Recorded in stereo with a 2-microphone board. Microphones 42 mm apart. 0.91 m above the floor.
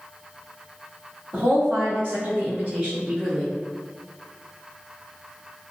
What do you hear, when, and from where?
1.3 s a woman speaking: 60° right (ahead or behind), 1.8 m; by 3.5 s 15° left (ahead or behind), 0.8 m